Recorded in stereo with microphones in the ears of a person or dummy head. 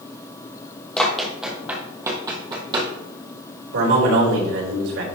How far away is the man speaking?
About 3.5 m.